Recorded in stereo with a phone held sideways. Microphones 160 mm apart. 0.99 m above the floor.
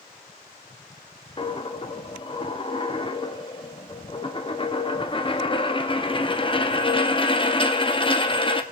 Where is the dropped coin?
30° left (ahead or behind), 0.6 m.